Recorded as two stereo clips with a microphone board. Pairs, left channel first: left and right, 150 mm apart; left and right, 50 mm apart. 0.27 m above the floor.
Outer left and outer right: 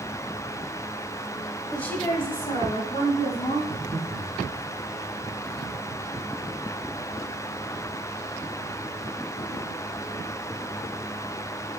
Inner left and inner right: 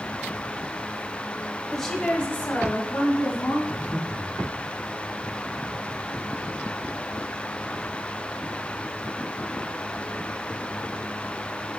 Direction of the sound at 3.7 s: 50° right (ahead or behind).